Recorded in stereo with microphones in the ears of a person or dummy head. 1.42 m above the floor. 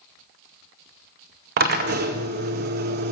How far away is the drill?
About 0.7 m.